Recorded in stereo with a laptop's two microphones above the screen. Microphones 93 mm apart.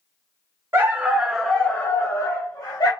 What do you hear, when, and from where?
0.7 s a dog barking: 25° right (ahead or behind), 0.6 m; by 2.9 s 45° left (ahead or behind), 0.9 m